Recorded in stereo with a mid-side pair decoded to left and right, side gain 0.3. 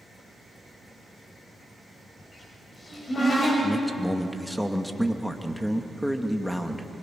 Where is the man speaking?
5° left, 2 m.